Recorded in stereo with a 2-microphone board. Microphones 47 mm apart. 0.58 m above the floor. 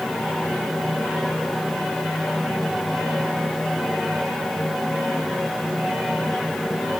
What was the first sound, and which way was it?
Only background noise.